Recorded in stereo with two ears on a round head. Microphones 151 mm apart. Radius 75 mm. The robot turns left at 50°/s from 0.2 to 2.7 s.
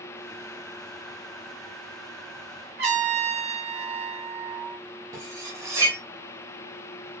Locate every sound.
2.8 s a trumpet: 70° right (ahead or behind), 1.5 m
5.1 s cutlery clinking: 20° right (ahead or behind), 0.9 m